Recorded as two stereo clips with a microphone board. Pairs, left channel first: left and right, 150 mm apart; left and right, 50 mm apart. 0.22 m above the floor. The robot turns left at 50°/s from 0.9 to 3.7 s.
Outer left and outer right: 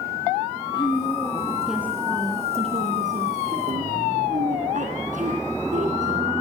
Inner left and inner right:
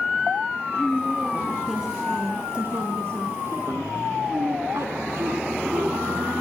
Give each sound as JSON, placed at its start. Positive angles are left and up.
{"t": 0.7, "sound": "a woman speaking", "azimuth_deg": 35, "distance_m": 3.0}